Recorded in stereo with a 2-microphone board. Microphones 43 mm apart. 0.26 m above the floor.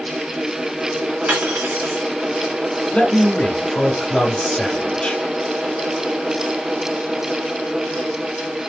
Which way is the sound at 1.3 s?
35° right (ahead or behind).